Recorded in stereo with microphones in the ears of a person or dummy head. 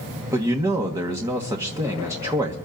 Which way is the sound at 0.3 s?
15° right (ahead or behind).